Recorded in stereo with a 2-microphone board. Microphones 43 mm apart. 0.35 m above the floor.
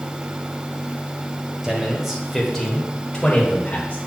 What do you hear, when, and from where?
1.6 s a man speaking: 15° right (ahead or behind), 1.5 m; by 4.0 s 40° left (ahead or behind), 1.6 m